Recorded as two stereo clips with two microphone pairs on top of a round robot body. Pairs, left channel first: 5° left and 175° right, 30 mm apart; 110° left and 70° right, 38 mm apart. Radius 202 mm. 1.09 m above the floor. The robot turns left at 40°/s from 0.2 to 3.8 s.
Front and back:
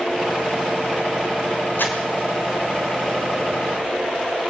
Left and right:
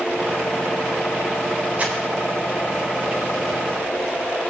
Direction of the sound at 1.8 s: 10° right.